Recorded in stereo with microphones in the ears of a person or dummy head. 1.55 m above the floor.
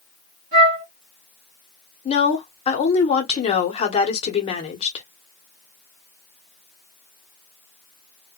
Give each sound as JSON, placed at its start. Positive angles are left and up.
{"t": 0.5, "sound": "a flute", "side_deg": -45, "distance_m": 1.9}
{"t": 2.0, "sound": "a woman speaking", "side_deg": 30, "distance_m": 0.8}